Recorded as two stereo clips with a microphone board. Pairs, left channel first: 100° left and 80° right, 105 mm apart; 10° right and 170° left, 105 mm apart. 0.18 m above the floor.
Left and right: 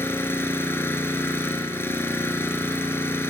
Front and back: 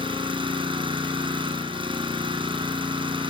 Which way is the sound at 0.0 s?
165° left.